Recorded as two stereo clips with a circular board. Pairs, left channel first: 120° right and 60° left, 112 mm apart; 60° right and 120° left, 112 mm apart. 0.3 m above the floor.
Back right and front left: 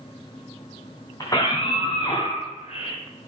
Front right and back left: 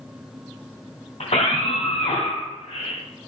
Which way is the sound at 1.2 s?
65° right.